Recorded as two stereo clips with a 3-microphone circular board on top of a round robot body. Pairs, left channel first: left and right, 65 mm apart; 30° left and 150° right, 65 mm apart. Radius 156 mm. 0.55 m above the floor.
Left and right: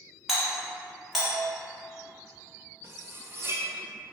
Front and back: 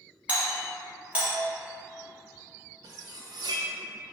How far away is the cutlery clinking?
About 0.6 m.